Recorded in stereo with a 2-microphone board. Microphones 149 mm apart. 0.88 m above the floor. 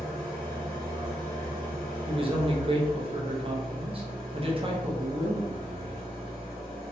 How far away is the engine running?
About 1.1 m.